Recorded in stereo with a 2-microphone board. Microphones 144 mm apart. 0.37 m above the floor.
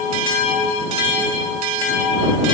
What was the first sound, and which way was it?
Only background noise.